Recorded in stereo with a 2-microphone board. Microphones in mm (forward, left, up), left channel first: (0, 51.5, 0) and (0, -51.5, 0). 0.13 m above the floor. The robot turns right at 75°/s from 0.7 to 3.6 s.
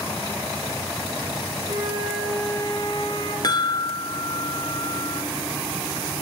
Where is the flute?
70° right, 5.5 m; by 3.3 s 55° left, 5.5 m.